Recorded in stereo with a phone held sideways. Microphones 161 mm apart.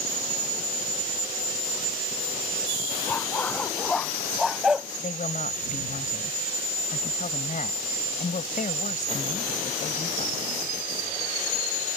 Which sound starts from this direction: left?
A woman speaking, at 5.0 s.